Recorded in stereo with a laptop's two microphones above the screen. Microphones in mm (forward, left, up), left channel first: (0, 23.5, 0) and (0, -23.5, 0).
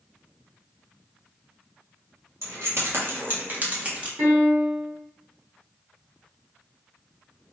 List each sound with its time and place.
2.4 s keys jangling: 70° right (ahead or behind), 1.5 m; by 4.1 s 25° right (ahead or behind), 1.2 m
4.2 s a piano: 65° right (ahead or behind), 1.8 m